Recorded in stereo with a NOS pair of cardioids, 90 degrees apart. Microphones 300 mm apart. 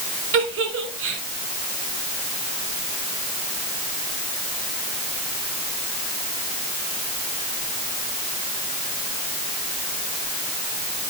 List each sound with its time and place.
0.3 s a giggle: 45° right, 4.5 m